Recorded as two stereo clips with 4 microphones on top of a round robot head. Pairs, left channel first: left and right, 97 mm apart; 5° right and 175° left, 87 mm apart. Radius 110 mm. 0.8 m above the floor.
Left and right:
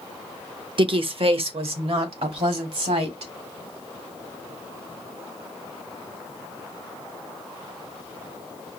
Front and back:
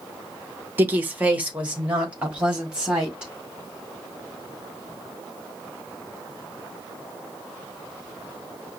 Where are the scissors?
No scissors in this recording.